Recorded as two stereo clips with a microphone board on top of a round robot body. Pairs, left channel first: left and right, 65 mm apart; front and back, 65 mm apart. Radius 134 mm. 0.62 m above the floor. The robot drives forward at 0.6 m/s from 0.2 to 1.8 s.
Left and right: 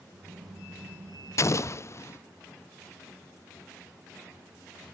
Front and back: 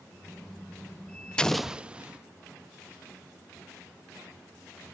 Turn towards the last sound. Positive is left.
turn(degrees=110)